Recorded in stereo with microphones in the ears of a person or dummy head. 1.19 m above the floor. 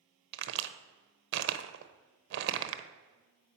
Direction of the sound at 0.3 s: 55° right (ahead or behind).